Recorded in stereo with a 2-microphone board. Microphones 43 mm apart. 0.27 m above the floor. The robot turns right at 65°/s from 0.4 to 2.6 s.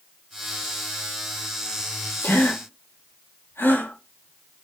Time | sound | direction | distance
2.2 | a gasp | 65° left (ahead or behind) | 5 m